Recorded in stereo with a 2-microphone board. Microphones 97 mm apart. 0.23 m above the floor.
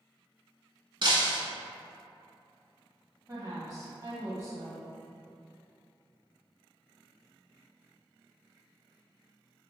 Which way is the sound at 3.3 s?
35° right (ahead or behind).